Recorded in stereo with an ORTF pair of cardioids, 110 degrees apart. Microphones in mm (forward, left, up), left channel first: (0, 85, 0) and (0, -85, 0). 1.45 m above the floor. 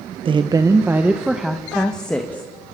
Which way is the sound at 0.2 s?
30° right.